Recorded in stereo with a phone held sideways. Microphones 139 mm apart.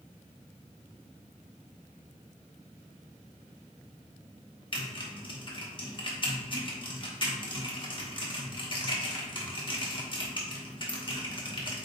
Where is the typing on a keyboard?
35° left (ahead or behind), 1.0 m.